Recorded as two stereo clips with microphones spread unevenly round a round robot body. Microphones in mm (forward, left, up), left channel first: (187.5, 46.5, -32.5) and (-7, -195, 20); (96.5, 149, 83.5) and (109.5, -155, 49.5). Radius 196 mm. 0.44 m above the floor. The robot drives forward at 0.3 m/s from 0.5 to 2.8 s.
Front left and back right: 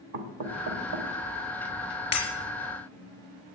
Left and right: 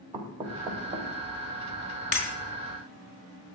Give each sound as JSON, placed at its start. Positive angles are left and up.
{"t": 0.1, "sound": "knocking", "azimuth_deg": -160, "distance_m": 1.5}
{"t": 2.1, "sound": "breaking glass", "azimuth_deg": 85, "distance_m": 4.5}